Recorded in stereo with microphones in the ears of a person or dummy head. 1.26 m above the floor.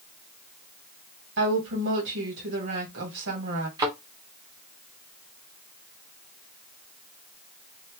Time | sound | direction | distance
1.4 | a woman speaking | 65° right (ahead or behind) | 2.0 m
3.8 | a thud | 20° right (ahead or behind) | 0.8 m